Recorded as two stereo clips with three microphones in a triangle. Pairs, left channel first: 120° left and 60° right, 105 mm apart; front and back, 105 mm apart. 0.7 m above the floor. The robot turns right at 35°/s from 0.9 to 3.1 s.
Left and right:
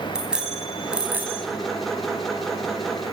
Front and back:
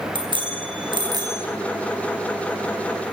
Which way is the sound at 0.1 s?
140° right.